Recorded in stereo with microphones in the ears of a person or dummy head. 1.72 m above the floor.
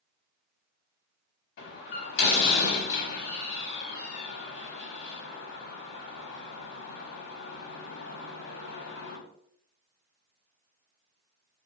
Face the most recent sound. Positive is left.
turn(degrees=60)  # may be behind; listen again after turning